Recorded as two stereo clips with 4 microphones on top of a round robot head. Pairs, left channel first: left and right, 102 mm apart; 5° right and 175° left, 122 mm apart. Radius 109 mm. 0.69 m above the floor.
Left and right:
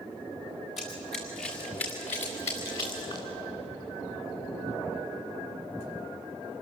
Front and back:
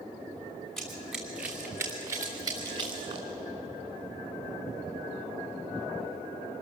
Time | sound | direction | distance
0.8 | running footsteps | 80° left | 3 m